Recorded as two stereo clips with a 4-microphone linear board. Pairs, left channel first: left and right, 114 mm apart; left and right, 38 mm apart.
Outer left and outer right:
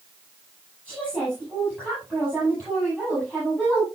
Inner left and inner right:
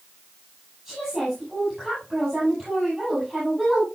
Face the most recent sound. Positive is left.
turn(degrees=10)  # may be behind; listen again after turning